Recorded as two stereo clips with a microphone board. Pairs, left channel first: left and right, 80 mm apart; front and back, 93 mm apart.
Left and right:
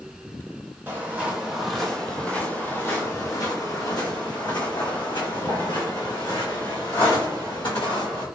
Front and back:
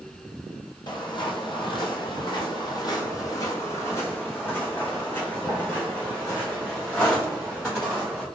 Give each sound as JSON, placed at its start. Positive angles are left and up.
{"t": 0.9, "sound": "footsteps", "azimuth_deg": -30, "distance_m": 1.2}